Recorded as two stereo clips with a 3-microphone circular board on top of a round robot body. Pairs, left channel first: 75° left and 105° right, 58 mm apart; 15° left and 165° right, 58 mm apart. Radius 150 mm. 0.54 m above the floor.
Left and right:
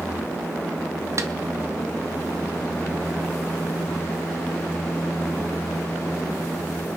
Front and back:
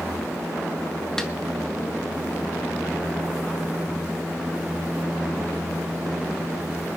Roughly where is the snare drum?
Ahead right.